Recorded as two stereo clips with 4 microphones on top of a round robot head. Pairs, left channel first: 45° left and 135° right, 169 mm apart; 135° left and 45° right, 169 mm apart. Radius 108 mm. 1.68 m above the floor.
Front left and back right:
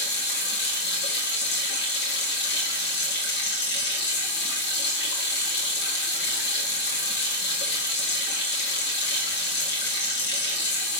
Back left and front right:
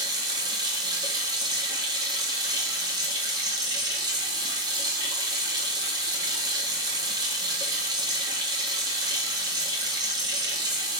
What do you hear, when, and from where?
0.0 s running water: 25° left, 1.6 m